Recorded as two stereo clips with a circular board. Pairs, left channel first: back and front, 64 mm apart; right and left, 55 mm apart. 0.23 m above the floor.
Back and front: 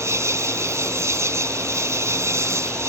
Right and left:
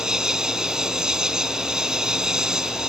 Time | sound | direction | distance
0.0 | an insect | 15° left | ?